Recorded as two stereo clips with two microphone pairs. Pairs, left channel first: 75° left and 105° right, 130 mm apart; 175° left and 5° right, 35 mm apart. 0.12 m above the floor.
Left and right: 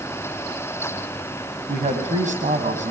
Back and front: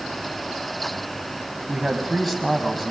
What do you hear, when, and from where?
1.7 s a man speaking: 105° right, 4 m